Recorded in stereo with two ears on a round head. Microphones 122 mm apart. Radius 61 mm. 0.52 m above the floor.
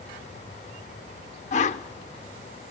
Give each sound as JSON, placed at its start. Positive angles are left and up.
{"t": 1.5, "sound": "a whoosh", "side_deg": 55, "distance_m": 0.9}